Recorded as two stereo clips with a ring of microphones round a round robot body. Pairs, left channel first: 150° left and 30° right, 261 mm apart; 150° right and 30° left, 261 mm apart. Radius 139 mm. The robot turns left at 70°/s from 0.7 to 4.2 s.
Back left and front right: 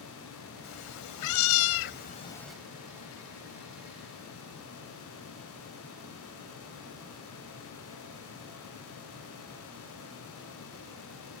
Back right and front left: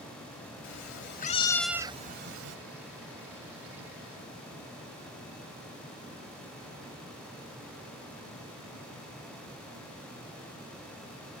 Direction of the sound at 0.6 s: 175° right.